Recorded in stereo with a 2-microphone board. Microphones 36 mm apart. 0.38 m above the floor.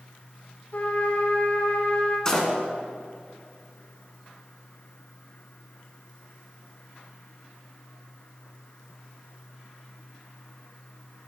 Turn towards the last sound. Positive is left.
turn(degrees=20)  # may be behind; listen again after turning